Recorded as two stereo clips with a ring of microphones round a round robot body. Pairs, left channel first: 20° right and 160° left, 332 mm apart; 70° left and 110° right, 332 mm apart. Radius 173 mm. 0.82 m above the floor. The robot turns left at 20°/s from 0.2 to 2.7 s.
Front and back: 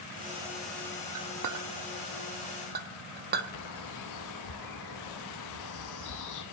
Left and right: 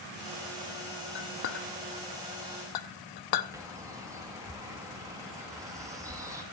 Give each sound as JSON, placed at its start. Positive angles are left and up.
{"t": 1.1, "sound": "a clink", "azimuth_deg": 125, "distance_m": 0.8}
{"t": 3.5, "sound": "a bird", "azimuth_deg": -35, "distance_m": 1.6}